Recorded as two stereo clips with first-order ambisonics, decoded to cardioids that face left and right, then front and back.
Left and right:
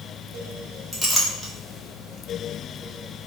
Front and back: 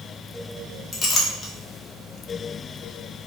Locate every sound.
0.9 s a clink: 5° left, 0.6 m